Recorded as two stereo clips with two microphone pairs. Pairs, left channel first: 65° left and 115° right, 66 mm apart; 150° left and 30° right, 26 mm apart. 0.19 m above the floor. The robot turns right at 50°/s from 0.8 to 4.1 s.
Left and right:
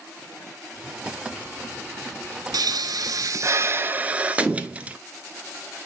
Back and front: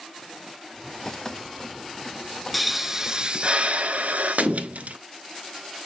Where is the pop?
125° right, 0.5 m; by 5.0 s 45° right, 0.5 m.